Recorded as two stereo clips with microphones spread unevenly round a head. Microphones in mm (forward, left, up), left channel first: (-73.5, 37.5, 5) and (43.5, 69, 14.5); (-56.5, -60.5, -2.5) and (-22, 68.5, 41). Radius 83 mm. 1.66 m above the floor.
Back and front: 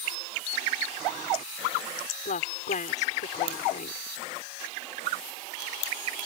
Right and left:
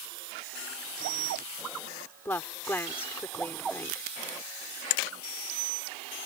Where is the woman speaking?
175° left.